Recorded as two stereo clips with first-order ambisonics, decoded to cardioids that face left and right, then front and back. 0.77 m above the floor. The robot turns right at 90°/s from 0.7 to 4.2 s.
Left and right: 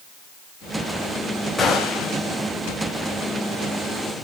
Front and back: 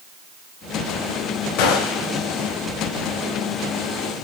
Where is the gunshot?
10° left, 3.5 m; by 2.2 s 60° left, 3.5 m.